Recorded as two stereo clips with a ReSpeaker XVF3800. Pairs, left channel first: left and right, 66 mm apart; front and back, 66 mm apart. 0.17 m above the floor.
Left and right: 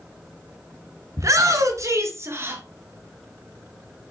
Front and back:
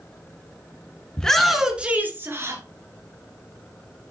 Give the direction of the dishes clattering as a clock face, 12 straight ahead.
No dishes clattering in this recording.